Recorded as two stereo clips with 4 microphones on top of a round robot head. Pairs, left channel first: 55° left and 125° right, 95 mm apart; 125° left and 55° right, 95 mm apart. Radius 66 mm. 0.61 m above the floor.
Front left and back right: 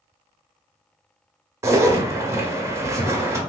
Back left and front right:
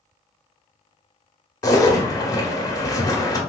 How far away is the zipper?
About 0.9 m.